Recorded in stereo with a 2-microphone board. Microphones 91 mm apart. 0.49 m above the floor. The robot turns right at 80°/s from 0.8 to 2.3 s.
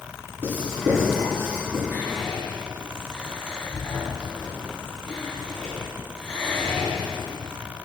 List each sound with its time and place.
0.4 s writing: 20° right (ahead or behind), 5 m; by 1.8 s 75° right (ahead or behind), 5 m
1.9 s whispering: 25° right (ahead or behind), 3.5 m; by 7.5 s 5° left (ahead or behind), 3.5 m